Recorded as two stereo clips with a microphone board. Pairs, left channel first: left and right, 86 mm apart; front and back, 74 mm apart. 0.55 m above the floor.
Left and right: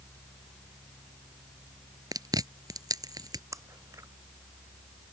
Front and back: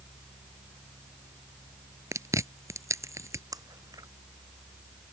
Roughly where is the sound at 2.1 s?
Behind right.